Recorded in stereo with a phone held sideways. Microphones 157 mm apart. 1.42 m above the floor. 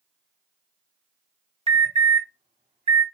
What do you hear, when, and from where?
1.7 s an alarm: 40° right (ahead or behind), 0.7 m